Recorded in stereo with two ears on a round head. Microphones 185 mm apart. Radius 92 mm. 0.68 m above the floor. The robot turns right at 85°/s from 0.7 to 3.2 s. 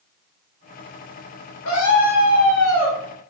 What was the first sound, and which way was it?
A scream, 90° left.